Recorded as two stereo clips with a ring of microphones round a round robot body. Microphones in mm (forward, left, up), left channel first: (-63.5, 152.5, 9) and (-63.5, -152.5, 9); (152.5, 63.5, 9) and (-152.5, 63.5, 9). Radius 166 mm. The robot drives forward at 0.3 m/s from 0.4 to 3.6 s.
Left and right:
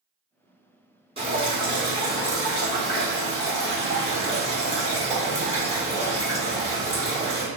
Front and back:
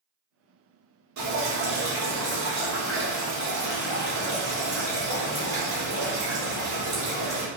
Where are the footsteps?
No footsteps in this recording.